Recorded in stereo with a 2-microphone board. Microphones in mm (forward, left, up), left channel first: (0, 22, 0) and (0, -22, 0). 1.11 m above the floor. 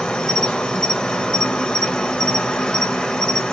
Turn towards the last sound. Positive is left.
turn(degrees=20)  # may be behind; listen again after turning